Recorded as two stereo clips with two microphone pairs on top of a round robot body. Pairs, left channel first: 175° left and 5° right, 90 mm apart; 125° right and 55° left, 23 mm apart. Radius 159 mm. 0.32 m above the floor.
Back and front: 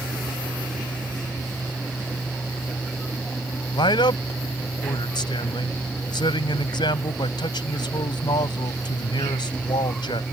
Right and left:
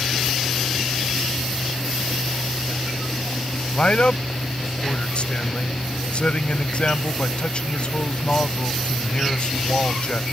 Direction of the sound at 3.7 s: 160° right.